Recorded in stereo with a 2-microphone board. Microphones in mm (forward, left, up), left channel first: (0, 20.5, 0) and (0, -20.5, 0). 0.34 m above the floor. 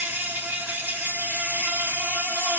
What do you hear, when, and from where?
0.0 s an insect: 70° right (ahead or behind), 1.9 m